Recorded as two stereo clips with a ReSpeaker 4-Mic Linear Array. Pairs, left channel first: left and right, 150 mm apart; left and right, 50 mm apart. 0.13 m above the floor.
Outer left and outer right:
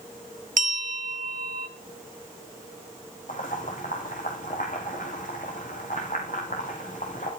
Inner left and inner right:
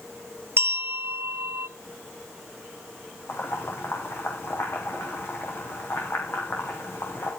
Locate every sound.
0.6 s a bell: 60° right (ahead or behind), 0.8 m
3.3 s boiling: 60° left (ahead or behind), 5 m